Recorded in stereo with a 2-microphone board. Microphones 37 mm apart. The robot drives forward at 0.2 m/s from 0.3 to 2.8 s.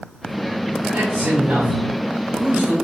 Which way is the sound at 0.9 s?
65° right (ahead or behind).